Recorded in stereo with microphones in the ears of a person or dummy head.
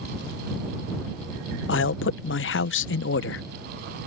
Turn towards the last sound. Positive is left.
turn(degrees=60)  # may be behind; listen again after turning